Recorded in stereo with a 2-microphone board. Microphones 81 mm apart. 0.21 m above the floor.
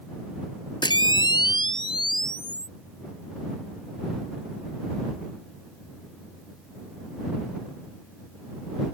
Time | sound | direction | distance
0.8 | a camera shutter | 70° left (ahead or behind) | ?